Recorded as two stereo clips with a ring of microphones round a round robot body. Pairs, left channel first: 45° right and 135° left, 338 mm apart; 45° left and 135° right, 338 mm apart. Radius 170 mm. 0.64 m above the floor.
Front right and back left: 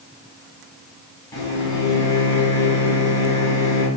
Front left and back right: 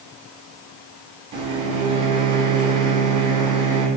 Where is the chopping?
No chopping in this recording.